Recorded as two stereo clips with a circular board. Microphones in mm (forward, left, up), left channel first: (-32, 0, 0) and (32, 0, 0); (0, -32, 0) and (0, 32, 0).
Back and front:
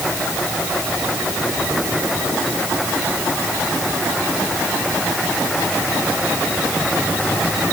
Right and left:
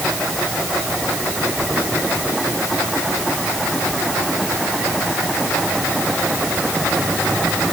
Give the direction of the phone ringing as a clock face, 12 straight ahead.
No phone ringing in this recording.